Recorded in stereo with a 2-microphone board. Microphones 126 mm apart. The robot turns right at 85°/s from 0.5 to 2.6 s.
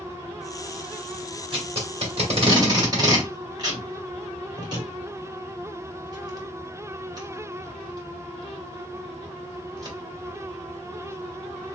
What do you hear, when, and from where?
1.5 s tape being pulled: 40° right (ahead or behind), 1.7 m; by 10.0 s 35° right (ahead or behind), 1.7 m